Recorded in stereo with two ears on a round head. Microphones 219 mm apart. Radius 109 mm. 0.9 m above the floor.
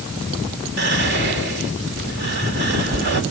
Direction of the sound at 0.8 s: 45° right (ahead or behind).